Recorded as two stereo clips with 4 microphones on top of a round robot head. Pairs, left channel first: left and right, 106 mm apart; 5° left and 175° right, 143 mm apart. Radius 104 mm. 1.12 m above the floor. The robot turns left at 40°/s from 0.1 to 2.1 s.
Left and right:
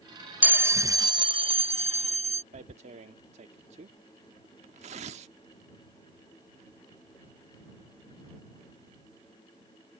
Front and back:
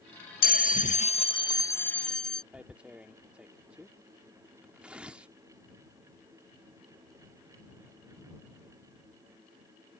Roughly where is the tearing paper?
Right.